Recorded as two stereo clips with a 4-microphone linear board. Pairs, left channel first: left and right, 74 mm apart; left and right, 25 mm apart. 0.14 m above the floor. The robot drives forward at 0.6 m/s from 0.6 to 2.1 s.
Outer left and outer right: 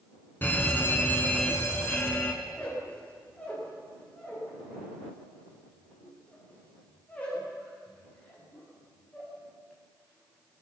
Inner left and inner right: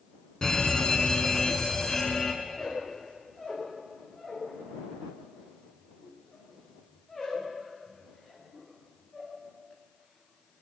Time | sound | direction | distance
0.4 | a fire alarm | 25° left (ahead or behind) | 2.5 m
2.4 | a squeak | 15° left (ahead or behind) | 10 m